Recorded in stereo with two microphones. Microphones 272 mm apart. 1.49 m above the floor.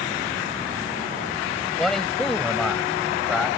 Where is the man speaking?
Centre (ahead or behind).